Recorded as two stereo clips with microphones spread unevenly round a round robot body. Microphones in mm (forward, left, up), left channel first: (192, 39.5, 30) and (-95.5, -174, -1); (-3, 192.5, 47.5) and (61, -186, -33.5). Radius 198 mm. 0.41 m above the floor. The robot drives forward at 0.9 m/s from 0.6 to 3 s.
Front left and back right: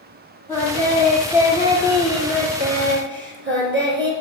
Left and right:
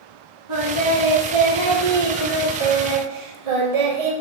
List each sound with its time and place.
0.5 s singing: 45° right, 3.5 m; by 4.1 s 85° right, 2.5 m